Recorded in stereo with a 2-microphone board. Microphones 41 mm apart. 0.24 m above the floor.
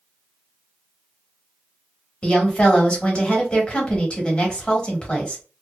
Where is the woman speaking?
25° left (ahead or behind), 1.1 m.